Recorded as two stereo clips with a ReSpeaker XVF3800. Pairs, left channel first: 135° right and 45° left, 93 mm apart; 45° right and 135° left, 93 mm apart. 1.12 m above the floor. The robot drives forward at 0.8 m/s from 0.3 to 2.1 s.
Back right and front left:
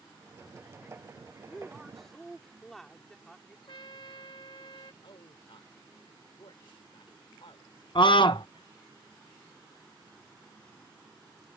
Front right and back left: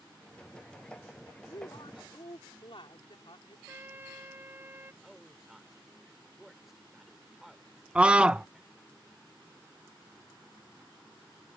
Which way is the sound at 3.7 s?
160° right.